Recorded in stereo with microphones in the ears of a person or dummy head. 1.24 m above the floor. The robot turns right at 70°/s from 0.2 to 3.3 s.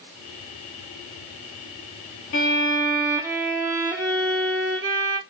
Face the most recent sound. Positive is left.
turn(degrees=-160)